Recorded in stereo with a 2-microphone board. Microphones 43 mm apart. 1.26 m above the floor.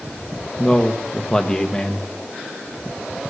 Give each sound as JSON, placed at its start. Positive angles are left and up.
{"t": 0.6, "sound": "a man speaking", "side_deg": 20, "distance_m": 1.5}